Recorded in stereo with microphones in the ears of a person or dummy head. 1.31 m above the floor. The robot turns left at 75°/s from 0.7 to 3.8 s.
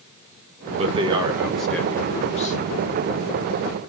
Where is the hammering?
I don't hear hammering.